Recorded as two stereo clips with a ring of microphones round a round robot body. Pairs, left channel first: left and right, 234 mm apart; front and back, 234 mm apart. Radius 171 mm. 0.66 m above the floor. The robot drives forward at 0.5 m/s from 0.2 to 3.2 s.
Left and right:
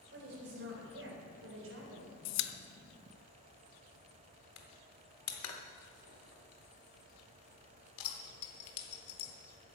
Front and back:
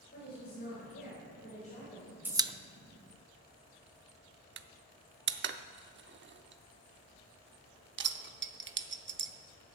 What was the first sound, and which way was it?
A woman speaking, 55° right.